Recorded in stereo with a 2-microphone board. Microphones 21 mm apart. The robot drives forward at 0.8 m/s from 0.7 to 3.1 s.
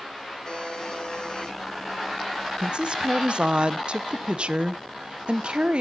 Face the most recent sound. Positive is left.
turn(degrees=-50)  # may be behind; listen again after turning